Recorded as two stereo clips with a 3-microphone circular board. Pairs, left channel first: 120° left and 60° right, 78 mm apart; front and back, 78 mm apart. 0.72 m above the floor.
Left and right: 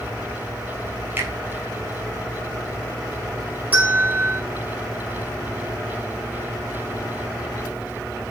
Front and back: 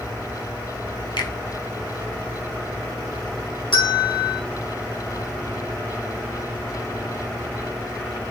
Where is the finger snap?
5° left, 4 m.